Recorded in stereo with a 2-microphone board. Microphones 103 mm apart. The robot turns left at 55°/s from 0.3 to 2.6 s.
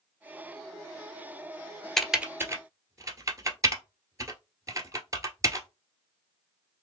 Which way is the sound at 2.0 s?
5° left (ahead or behind).